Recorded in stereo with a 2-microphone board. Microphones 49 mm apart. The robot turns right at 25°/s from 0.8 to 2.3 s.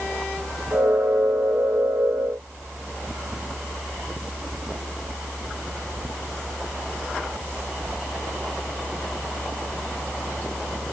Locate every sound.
Only background noise.